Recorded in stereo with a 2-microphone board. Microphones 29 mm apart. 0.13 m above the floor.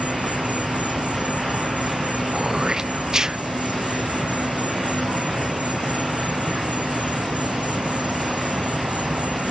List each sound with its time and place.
0.0 s an insect: 55° right (ahead or behind)
2.3 s throat clearing: 20° right (ahead or behind)